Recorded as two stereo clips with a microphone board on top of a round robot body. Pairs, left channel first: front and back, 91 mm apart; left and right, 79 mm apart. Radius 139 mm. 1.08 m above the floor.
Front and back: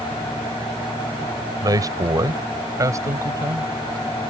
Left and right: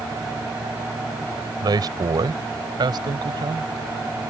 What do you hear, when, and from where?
1.6 s a man speaking: 130° right; by 3.7 s 120° right